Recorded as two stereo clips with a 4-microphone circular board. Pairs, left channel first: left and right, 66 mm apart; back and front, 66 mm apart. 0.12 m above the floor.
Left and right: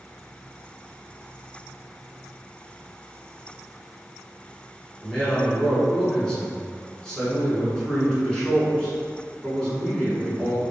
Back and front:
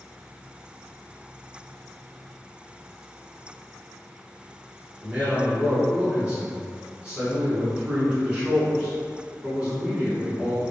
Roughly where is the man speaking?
Ahead left.